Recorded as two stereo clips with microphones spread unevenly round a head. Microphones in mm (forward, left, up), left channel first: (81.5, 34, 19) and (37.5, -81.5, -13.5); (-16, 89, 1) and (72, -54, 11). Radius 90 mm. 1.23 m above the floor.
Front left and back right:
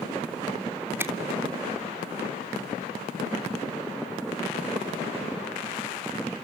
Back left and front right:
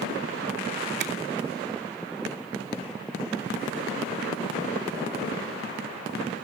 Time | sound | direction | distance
1.0 | a finger snap | 35° right | 3 m